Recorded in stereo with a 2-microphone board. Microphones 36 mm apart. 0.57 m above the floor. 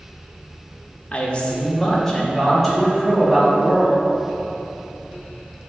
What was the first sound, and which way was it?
A man speaking, 35° left (ahead or behind).